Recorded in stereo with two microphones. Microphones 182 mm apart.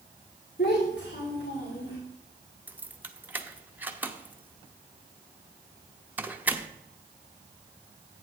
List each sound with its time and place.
0.6 s a child speaking: 65° left (ahead or behind), 2.5 m; by 2.0 s 80° left, 3.5 m
2.7 s keys jangling: 10° right (ahead or behind), 0.8 m